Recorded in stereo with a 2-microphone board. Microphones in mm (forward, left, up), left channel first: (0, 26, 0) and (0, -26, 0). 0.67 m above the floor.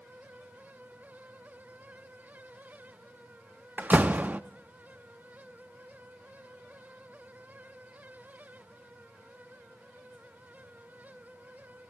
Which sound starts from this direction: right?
A door slam, at 3.8 s.